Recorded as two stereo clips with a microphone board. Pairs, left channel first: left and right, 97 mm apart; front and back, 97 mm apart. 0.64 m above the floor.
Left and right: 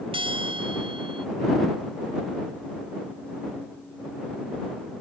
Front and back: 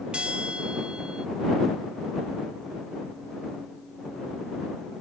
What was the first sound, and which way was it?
A bell, 100° right.